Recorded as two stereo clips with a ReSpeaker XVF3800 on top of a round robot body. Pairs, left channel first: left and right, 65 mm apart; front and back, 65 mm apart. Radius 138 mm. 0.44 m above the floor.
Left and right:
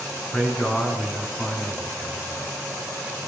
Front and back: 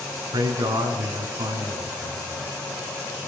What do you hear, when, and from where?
0.3 s a man speaking: 170° left, 5 m